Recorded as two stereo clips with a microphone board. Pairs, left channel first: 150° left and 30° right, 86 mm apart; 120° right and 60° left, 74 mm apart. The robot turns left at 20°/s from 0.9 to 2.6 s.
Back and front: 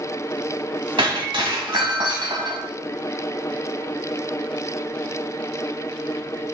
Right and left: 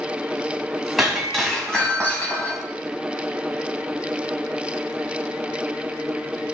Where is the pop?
No pop in this recording.